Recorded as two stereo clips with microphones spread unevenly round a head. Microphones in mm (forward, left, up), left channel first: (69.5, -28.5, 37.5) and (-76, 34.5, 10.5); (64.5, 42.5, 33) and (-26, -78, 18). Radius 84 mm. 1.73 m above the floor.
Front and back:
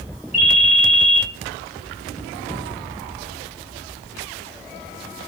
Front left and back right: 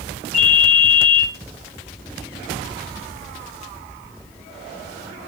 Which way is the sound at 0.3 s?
145° right.